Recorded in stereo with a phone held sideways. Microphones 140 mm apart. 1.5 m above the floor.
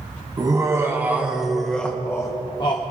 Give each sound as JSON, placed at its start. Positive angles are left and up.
{"t": 0.4, "sound": "laughter", "side_deg": -25, "distance_m": 1.3}